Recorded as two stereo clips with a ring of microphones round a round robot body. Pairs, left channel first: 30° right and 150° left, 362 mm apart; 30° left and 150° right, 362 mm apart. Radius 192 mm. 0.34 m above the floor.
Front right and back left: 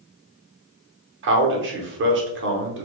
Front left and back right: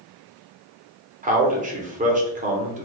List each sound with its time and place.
1.2 s a man speaking: 160° left, 0.9 m